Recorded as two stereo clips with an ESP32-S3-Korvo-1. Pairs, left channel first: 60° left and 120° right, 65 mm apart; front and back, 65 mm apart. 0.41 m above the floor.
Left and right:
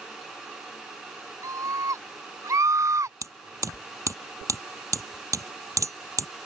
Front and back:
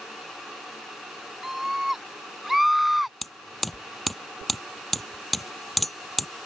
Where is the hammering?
90° right.